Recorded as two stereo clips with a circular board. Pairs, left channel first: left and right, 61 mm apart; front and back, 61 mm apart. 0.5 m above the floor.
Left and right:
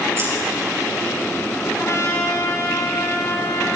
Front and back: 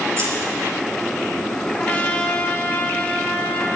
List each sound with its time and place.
0.2 s scissors: 135° right, 5.5 m
1.7 s a trumpet: 60° left, 2 m